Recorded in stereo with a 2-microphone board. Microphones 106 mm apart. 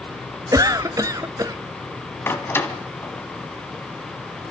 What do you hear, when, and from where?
0.5 s a cough: 35° right (ahead or behind), 1.0 m
2.3 s a door slam: 20° left (ahead or behind), 1.6 m